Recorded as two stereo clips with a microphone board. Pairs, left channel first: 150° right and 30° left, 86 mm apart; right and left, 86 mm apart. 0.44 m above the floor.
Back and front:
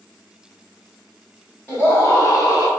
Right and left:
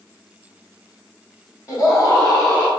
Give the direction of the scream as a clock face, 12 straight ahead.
3 o'clock.